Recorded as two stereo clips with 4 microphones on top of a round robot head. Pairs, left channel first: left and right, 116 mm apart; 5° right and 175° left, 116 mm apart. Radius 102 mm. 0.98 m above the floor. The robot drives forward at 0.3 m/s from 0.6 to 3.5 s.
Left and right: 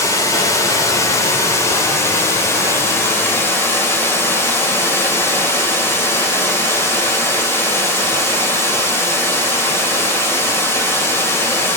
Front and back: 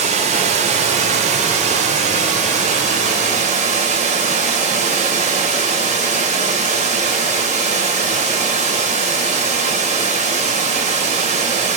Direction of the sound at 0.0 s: 155° left.